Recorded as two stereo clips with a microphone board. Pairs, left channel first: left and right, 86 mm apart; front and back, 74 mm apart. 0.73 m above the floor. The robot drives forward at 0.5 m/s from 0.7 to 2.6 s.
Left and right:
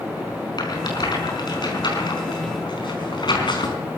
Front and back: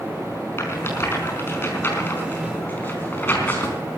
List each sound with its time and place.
0.6 s a rattle: 55° left, 5 m; by 3.8 s 65° left, 4.5 m